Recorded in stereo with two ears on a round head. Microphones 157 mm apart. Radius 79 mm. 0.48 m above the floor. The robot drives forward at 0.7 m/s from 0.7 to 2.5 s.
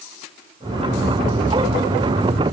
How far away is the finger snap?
No finger snap in this recording.